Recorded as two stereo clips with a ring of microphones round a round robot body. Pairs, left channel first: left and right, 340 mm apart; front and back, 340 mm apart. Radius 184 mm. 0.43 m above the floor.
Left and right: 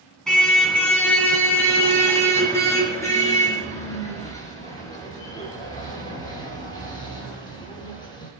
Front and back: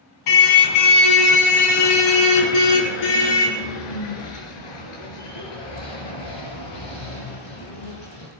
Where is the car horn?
Straight ahead, 2 m; by 8.3 s 10° left, 6.5 m.